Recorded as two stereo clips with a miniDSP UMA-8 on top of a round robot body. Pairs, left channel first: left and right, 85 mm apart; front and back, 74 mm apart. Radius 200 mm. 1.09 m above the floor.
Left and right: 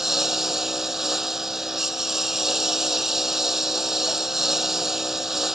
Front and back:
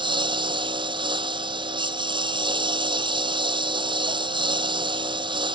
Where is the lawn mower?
175° right.